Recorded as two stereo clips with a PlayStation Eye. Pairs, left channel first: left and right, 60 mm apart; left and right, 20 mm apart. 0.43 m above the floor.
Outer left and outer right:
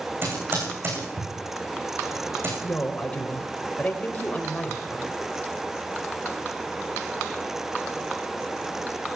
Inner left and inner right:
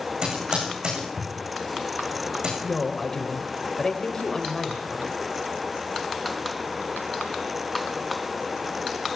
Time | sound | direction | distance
0.2 | typing on a keyboard | 40° right (ahead or behind) | 10 m
2.6 | a woman speaking | 20° left (ahead or behind) | 2 m